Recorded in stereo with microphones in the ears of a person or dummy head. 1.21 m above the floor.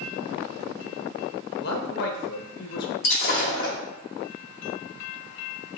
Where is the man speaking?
55° left (ahead or behind), 0.7 m.